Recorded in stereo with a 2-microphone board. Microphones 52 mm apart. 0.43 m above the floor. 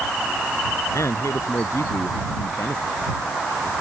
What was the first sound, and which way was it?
A man speaking, 80° left.